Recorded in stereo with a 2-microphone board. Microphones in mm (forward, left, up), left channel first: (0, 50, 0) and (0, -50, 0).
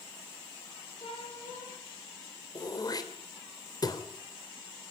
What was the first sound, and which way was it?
A cat meowing, 75° left (ahead or behind).